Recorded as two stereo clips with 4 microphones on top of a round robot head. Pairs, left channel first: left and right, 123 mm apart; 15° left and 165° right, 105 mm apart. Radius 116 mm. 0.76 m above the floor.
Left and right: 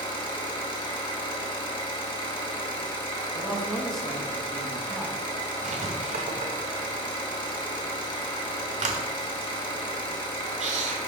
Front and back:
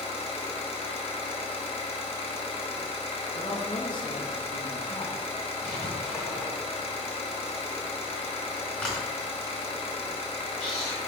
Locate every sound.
0.0 s an engine running: 40° left, 0.9 m
3.3 s a man speaking: straight ahead, 0.9 m
5.6 s writing: 70° right, 0.7 m